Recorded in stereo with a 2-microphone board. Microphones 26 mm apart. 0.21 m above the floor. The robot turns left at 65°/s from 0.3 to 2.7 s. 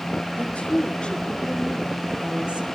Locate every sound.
0.3 s a woman speaking: 95° left, 3.5 m; by 2.7 s 55° right, 3.5 m